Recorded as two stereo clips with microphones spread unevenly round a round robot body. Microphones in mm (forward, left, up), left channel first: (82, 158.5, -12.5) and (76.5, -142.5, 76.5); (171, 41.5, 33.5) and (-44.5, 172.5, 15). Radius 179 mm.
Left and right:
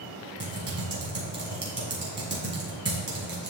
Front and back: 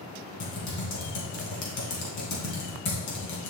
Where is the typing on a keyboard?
30° right, 2.5 m.